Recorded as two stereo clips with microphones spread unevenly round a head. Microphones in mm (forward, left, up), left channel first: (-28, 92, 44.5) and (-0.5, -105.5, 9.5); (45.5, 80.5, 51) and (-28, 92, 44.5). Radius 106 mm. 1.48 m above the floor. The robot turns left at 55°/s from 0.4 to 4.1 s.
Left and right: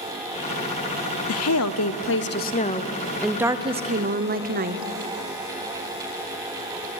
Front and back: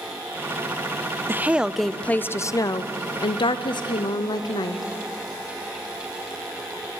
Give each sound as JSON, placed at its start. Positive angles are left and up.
{"t": 1.3, "sound": "a woman speaking", "azimuth_deg": 110, "distance_m": 0.6}